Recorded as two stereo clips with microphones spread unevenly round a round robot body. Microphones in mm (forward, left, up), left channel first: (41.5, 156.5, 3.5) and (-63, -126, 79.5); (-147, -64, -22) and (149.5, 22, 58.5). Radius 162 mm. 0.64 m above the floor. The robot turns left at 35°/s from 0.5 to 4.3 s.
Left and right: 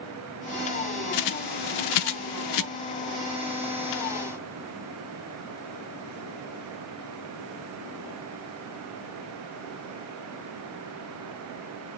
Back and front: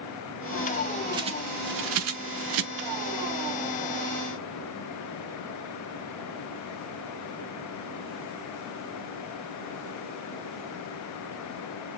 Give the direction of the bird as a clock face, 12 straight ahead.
9 o'clock.